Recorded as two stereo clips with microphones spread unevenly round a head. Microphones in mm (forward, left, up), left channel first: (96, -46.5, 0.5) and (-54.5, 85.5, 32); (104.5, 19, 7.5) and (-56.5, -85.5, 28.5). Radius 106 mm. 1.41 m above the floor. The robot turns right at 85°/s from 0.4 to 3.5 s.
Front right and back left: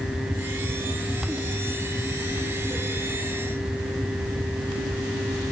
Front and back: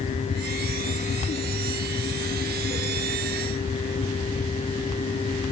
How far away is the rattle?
I don't hear a rattle.